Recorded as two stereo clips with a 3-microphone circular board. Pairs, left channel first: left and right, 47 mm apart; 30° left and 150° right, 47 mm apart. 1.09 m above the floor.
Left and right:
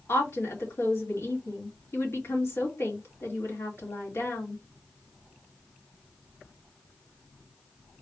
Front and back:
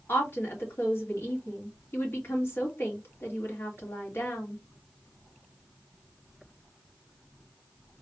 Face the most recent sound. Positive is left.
turn(degrees=65)